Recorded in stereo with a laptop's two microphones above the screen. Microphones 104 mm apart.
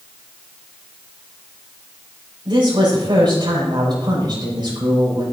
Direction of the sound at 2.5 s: 45° right (ahead or behind).